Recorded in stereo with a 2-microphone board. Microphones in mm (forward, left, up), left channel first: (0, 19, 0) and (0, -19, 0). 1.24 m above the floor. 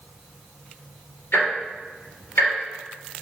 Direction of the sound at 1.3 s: 85° left.